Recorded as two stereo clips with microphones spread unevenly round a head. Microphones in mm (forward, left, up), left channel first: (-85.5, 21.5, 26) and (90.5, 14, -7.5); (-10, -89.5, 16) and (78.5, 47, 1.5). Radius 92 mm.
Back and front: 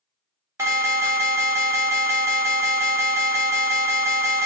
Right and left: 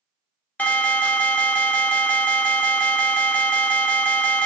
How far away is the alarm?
About 1.1 m.